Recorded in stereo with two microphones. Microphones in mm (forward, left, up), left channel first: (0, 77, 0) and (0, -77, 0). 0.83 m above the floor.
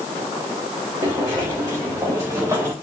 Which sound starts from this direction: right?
Footsteps, at 1.0 s.